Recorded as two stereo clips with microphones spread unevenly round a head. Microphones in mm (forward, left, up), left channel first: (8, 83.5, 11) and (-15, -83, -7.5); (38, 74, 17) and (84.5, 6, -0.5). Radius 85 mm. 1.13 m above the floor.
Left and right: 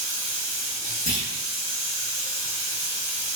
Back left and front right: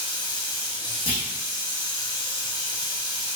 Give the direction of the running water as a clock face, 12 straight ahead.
9 o'clock.